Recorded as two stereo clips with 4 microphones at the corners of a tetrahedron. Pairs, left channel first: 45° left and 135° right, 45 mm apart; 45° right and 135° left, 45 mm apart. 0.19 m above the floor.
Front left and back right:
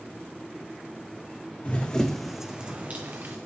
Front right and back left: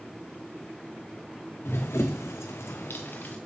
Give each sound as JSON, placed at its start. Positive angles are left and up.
{"t": 1.6, "sound": "running footsteps", "azimuth_deg": -15, "distance_m": 0.8}